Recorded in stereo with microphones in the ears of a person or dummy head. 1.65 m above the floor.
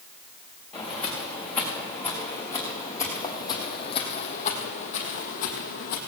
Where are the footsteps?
Centre (ahead or behind), 5.5 m; by 6.0 s 50° left (ahead or behind), 2.5 m.